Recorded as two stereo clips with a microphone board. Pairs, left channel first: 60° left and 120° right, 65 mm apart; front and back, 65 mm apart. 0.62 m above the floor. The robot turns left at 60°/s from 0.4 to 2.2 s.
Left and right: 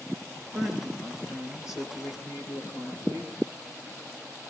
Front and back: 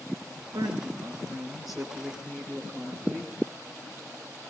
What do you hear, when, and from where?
0.5 s a woman speaking: 160° left, 9.5 m; by 3.4 s 60° left, 9.5 m